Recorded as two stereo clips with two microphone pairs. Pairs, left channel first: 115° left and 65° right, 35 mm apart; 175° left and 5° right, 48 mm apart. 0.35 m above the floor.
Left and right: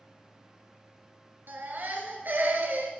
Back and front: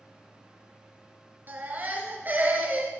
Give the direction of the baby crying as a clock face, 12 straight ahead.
2 o'clock.